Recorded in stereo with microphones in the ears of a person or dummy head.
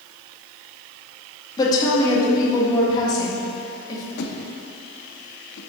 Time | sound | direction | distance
1.6 | a woman speaking | 30° left (ahead or behind) | 1.7 m
4.2 | a whoosh | 60° left (ahead or behind) | 0.8 m